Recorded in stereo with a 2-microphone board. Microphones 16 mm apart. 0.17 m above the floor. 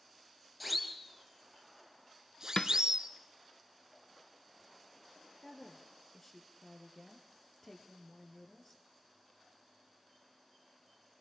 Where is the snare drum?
55° left (ahead or behind), 0.6 m.